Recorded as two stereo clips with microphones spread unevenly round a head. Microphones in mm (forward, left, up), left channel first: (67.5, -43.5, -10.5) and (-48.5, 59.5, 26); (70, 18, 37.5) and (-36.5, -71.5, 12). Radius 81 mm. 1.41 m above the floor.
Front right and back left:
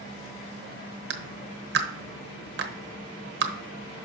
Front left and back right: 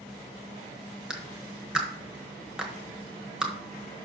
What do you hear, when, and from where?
1.1 s a clap: 130° left, 1.0 m